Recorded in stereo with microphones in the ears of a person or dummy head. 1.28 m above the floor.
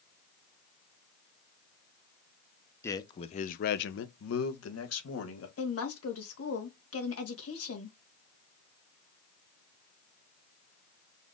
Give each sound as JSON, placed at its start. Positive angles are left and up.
{"t": 2.8, "sound": "a man speaking", "side_deg": 15, "distance_m": 0.7}
{"t": 5.6, "sound": "a woman speaking", "side_deg": 70, "distance_m": 1.5}